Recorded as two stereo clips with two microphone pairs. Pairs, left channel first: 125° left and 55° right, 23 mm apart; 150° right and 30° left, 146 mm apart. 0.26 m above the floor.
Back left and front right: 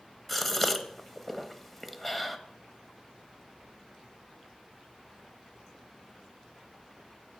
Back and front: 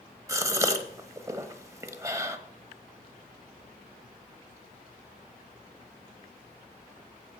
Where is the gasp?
60° left, 0.8 m.